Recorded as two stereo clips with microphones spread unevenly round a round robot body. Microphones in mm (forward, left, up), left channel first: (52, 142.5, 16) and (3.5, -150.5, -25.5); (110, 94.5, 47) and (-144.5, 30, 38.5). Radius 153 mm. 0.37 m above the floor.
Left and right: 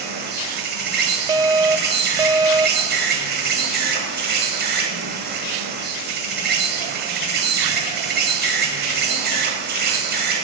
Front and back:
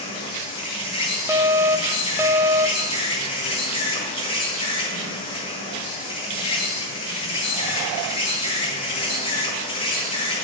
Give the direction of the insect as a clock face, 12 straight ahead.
2 o'clock.